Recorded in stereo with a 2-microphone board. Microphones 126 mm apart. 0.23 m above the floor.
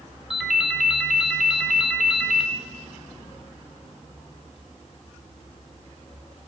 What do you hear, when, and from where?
0.3 s a ringtone: 5° right (ahead or behind), 1.3 m